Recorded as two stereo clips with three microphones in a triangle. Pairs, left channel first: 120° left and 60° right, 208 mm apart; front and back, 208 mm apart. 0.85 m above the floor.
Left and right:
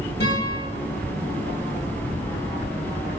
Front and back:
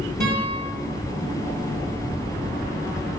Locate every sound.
0.2 s a guitar: 150° left, 3.5 m